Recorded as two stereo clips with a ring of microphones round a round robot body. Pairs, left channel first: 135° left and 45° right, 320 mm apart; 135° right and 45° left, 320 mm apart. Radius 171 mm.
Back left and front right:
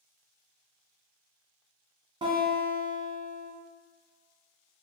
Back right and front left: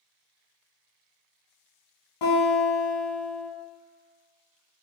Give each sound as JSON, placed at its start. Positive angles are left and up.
{"t": 2.2, "sound": "a guitar", "azimuth_deg": -120, "distance_m": 1.3}